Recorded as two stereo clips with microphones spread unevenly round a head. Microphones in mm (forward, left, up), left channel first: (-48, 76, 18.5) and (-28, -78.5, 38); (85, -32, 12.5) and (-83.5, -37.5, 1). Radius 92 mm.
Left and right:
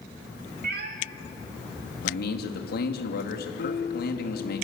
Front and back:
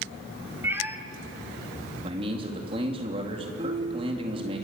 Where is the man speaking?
120° left, 3.5 m.